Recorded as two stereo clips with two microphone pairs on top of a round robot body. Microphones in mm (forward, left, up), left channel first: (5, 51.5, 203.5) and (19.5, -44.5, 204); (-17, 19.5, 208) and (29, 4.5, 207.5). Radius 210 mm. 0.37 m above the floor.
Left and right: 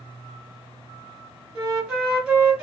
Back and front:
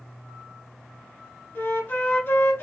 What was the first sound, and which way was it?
A flute, 160° right.